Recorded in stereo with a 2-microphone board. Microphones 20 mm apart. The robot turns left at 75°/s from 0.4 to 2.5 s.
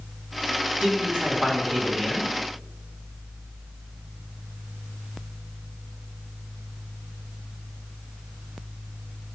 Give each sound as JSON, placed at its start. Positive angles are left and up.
{"t": 0.8, "sound": "a man speaking", "azimuth_deg": -80, "distance_m": 5.0}